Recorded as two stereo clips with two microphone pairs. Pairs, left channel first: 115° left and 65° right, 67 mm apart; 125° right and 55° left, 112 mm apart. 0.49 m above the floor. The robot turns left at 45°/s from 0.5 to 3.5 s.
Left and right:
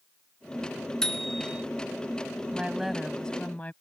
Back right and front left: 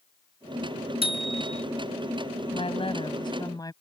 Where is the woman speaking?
135° right; by 3.7 s 175° right.